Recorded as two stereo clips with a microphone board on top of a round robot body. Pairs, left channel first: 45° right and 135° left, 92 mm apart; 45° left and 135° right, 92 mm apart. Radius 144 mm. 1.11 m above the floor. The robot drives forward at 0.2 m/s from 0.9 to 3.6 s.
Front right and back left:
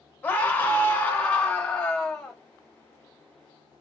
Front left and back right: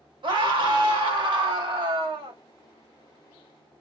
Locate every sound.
0.2 s a scream: 115° right, 1.3 m; by 2.4 s 130° right, 1.5 m